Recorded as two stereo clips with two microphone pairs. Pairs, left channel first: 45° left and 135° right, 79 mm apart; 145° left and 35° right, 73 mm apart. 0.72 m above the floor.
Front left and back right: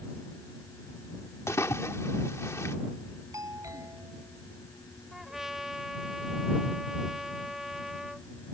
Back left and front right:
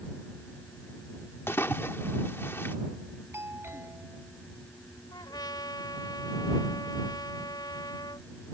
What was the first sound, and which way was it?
A splash, 90° left.